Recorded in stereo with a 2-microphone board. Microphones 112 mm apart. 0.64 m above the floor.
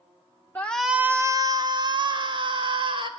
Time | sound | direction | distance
0.6 | a shout | 15° left (ahead or behind) | 0.7 m